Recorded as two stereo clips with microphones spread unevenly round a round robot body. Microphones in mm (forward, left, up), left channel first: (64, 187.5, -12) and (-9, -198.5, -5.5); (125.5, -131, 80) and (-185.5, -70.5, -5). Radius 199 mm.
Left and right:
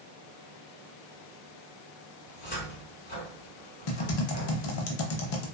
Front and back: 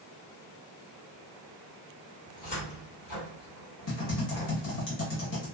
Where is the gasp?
I don't hear a gasp.